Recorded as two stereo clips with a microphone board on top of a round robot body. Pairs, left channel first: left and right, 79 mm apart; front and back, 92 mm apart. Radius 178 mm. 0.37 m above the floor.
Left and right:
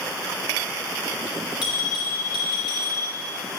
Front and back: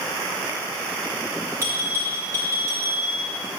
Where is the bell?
120° left, 2.5 m.